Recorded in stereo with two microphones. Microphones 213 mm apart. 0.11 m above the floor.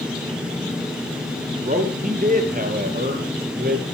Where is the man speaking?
40° right (ahead or behind), 3.5 m; by 3.8 s 45° right (ahead or behind), 2.5 m.